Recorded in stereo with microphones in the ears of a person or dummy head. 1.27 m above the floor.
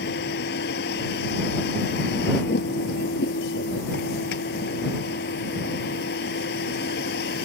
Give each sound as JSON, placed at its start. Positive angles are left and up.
{"t": 0.0, "sound": "a vehicle", "side_deg": 65}